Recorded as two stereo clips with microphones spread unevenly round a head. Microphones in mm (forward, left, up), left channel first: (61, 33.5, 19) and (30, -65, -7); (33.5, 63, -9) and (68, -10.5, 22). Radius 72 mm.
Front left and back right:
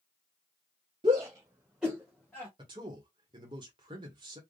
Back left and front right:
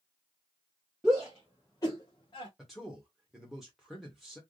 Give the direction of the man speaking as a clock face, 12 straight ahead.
5 o'clock.